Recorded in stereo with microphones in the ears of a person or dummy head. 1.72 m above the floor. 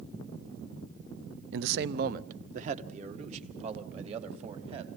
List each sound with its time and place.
1.5 s a man speaking: 70° right (ahead or behind), 0.6 m; by 4.9 s 40° right (ahead or behind), 4 m